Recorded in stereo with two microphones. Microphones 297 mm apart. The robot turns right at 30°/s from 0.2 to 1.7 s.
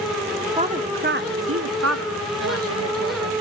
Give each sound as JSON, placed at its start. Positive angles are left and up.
{"t": 0.6, "sound": "a woman speaking", "side_deg": -20, "distance_m": 1.0}